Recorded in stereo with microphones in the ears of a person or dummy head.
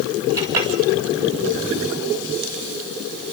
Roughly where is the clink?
Centre.